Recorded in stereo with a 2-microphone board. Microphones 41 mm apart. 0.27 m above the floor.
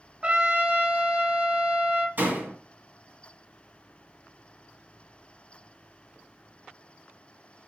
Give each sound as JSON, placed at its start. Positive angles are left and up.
{"t": 0.2, "sound": "a trumpet", "side_deg": -25, "distance_m": 0.7}
{"t": 2.2, "sound": "a door slam", "side_deg": -55, "distance_m": 1.9}